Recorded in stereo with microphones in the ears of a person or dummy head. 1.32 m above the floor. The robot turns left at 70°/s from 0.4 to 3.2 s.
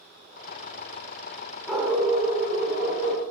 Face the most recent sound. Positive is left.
turn(degrees=-115)